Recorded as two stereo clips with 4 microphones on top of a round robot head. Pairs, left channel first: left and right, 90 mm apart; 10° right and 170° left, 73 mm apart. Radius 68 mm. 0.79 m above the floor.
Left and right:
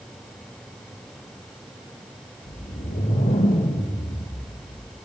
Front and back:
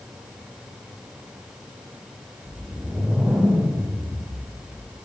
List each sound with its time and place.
2.5 s a whoosh: 90° left, 4.5 m